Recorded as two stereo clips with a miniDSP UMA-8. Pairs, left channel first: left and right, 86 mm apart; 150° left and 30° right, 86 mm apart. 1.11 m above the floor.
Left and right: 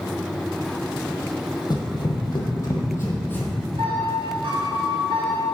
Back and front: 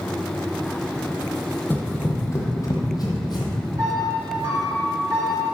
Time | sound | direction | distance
1.7 | running footsteps | 90° left | 1.7 m
3.8 | a piano | 75° right | 1.9 m